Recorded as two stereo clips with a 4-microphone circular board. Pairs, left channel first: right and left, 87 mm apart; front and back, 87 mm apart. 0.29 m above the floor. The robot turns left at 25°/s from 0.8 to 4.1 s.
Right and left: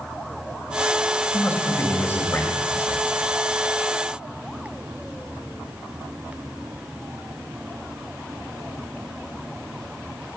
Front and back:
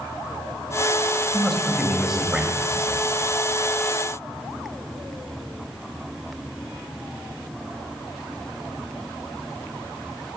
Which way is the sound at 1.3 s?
85° right.